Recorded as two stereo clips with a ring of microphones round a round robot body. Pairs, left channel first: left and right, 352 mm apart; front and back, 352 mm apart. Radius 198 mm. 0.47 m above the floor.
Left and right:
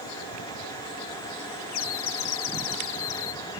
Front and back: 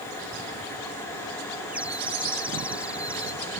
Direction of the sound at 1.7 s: 95° left.